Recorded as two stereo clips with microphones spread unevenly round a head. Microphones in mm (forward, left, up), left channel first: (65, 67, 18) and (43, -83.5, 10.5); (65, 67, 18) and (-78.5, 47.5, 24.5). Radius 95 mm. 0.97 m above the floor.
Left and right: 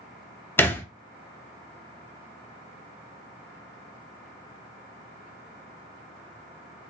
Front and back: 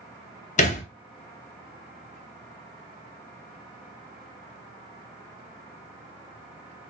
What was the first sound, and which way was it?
A thud, 15° left.